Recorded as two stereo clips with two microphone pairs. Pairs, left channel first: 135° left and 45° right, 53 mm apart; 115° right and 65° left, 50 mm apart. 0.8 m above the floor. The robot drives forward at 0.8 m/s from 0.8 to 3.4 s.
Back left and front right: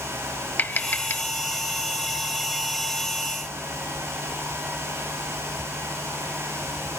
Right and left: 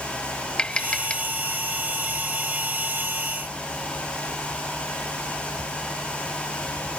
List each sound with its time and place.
0.6 s tapping: straight behind